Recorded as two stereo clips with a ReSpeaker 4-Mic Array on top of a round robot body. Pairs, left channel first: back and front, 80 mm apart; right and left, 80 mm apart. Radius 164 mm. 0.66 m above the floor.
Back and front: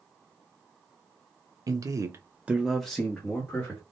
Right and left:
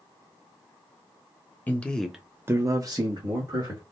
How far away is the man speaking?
About 0.8 m.